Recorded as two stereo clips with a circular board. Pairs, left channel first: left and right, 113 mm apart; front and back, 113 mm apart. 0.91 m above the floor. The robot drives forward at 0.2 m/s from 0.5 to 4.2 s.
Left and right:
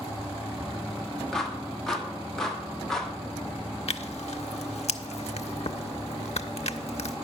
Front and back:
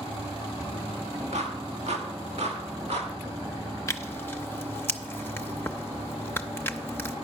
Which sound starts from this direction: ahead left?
Tearing paper, at 3.9 s.